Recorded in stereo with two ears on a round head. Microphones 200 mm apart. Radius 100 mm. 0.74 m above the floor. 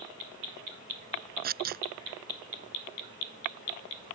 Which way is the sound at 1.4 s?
40° right (ahead or behind).